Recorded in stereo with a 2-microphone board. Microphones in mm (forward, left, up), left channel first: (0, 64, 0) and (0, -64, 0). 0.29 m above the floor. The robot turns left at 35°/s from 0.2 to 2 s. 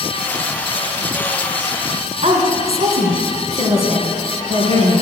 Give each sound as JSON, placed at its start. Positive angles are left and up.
{"t": 2.2, "sound": "a woman speaking", "side_deg": -60, "distance_m": 2.5}